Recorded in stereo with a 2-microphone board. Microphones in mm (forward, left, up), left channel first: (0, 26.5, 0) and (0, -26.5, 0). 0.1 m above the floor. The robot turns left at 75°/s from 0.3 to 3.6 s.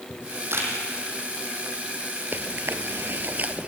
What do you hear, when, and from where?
0.1 s a camera shutter: 65° right (ahead or behind), 4 m; by 0.7 s 40° right (ahead or behind), 4 m
2.3 s chewing: 40° right (ahead or behind), 0.8 m; by 3.7 s 25° right (ahead or behind), 0.8 m